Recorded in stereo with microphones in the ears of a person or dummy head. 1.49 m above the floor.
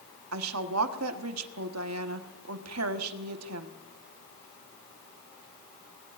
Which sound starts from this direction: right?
A woman speaking, at 0.3 s.